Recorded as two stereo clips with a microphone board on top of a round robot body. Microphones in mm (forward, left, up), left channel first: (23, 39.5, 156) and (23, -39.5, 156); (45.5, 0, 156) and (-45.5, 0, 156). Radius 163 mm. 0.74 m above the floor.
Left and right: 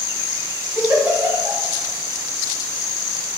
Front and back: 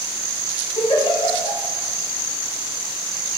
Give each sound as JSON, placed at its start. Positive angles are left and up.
{"t": 0.8, "sound": "a giggle", "azimuth_deg": -20, "distance_m": 0.8}